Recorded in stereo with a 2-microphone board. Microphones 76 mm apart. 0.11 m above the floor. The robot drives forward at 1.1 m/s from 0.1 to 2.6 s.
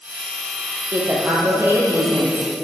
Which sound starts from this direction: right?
A woman speaking, at 0.9 s.